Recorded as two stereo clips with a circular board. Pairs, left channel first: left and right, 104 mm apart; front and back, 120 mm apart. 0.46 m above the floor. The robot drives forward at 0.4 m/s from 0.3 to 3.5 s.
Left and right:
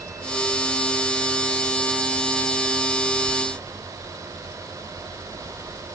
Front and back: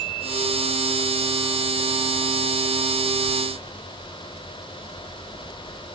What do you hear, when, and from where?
Only background noise.